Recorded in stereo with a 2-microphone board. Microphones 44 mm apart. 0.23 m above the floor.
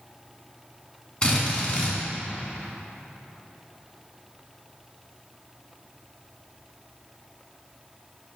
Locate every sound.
1.2 s a drill: 30° left (ahead or behind), 1.8 m